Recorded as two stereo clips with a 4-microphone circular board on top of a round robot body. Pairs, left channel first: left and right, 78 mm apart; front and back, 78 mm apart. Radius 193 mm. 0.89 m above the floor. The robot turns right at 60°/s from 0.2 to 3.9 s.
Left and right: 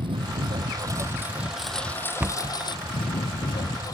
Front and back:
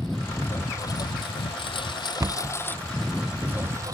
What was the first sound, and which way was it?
A lawn mower, 85° right.